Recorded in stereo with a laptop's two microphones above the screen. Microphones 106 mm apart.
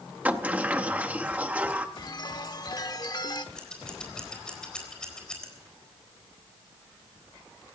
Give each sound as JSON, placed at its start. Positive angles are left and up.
{"t": 0.2, "sound": "a sliding door", "side_deg": -15, "distance_m": 0.7}
{"t": 2.0, "sound": "a chime", "side_deg": 40, "distance_m": 1.0}
{"t": 3.5, "sound": "scissors", "side_deg": 5, "distance_m": 4.0}